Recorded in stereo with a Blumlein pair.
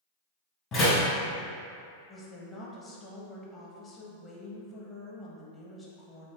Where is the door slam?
30° left, 1.5 m.